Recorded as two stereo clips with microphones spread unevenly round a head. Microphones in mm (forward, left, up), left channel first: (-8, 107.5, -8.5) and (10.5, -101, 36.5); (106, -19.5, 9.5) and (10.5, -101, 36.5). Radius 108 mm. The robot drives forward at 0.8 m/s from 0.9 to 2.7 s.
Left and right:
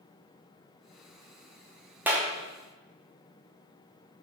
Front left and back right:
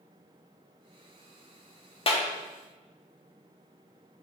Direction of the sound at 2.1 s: 5° right.